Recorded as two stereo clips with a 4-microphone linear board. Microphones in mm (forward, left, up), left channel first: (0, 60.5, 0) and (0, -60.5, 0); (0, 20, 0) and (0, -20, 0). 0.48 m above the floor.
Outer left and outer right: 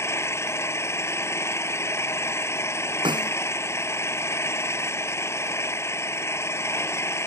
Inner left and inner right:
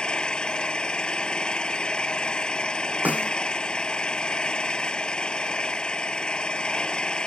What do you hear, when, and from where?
0.0 s an engine running: 20° left (ahead or behind)
3.0 s a snare drum: 35° right (ahead or behind)